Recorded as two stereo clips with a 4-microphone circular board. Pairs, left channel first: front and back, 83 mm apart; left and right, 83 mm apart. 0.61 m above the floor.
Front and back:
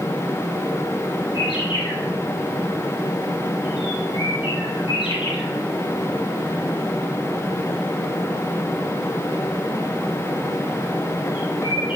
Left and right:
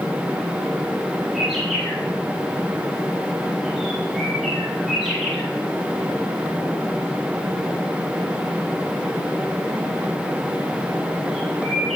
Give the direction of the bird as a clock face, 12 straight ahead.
12 o'clock.